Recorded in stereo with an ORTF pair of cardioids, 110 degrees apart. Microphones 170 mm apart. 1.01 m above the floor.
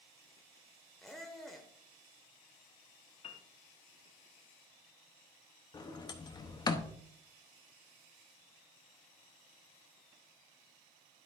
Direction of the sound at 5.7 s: 25° left.